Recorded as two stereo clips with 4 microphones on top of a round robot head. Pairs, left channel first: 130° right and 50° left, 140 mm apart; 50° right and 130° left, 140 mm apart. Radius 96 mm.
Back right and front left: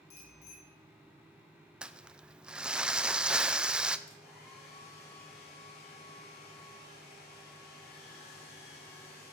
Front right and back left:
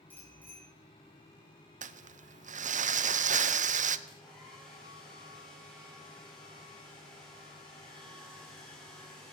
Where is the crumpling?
135° left, 0.6 m.